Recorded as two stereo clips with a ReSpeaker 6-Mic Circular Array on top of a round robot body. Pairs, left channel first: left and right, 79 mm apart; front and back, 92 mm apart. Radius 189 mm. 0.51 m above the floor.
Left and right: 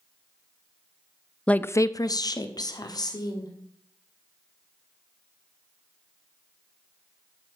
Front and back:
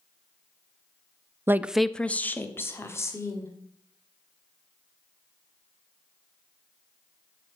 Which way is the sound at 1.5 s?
155° left.